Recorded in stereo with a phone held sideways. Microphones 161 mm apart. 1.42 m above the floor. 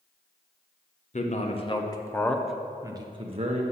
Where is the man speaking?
50° left (ahead or behind), 1.0 m; by 3.6 s 45° right (ahead or behind), 0.9 m.